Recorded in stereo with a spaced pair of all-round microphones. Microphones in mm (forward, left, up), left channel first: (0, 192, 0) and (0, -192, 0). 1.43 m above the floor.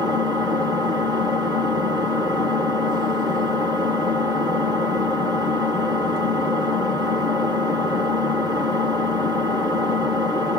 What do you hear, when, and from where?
0.0 s an engine running: 10° right (ahead or behind), 1.2 m